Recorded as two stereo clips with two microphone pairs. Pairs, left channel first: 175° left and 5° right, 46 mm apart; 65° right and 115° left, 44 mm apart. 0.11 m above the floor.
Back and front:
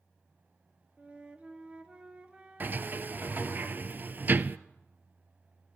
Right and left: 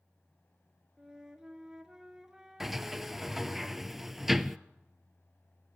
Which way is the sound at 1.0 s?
45° left.